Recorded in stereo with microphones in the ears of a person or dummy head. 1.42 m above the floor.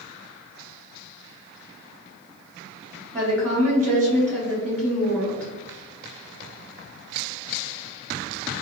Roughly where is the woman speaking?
Centre.